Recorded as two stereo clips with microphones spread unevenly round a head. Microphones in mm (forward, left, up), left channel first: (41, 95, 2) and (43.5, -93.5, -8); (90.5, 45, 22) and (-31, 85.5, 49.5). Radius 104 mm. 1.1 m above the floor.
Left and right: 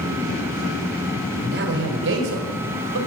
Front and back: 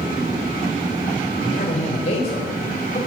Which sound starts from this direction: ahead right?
A man speaking, at 1.4 s.